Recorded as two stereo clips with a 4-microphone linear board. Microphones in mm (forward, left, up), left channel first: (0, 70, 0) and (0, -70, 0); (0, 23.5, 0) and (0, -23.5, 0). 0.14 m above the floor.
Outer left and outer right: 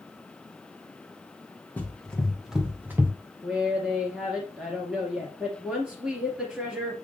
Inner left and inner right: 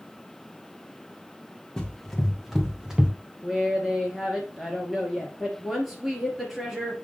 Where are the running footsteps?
10° left (ahead or behind), 1.7 m; by 3.1 s 20° right (ahead or behind), 1.3 m.